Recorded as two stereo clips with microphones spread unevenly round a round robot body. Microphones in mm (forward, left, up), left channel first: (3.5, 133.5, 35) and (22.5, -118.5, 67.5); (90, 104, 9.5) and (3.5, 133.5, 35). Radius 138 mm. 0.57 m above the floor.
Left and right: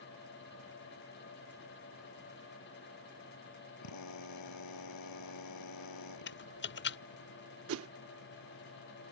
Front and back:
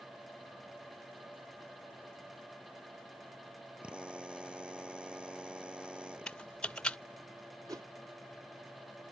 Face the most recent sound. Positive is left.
turn(degrees=-125)